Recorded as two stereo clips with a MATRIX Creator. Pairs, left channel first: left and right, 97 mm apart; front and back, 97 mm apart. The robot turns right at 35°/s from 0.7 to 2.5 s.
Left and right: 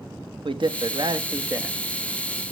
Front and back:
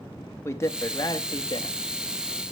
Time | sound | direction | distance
0.5 | a man speaking | 60° right | 0.8 m